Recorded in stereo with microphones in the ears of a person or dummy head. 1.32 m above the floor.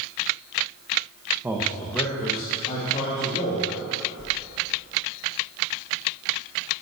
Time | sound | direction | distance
1.4 | a man speaking | 10° right (ahead or behind) | 0.9 m
4.2 | a whoosh | 60° left (ahead or behind) | 1.8 m